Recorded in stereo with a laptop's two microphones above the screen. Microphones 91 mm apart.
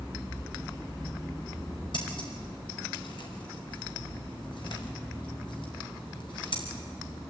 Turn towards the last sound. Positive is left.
turn(degrees=60)  # may be behind; listen again after turning